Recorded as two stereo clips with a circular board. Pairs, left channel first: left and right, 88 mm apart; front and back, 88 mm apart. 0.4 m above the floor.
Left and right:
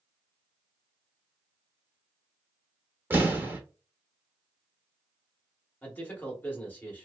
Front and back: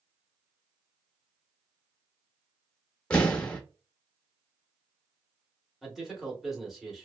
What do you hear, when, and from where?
3.1 s an explosion: 65° right, 0.8 m
5.8 s a man speaking: 100° left, 1.0 m